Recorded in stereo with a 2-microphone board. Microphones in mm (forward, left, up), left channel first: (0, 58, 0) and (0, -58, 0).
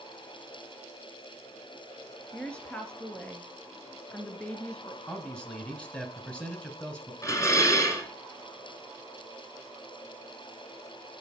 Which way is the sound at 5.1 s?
10° left (ahead or behind).